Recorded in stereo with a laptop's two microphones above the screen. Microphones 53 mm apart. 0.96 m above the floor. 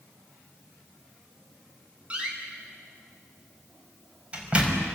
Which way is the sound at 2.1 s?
20° right (ahead or behind).